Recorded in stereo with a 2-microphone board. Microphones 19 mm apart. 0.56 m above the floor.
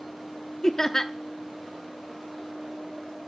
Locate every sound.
0.6 s laughter: 25° left (ahead or behind), 0.7 m